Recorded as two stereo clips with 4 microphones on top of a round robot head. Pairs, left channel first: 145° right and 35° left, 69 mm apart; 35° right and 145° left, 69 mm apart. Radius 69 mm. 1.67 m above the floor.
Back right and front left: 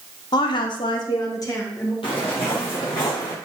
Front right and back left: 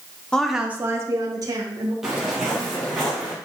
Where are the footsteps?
135° right, 2 m; by 3.3 s 130° right, 3.5 m.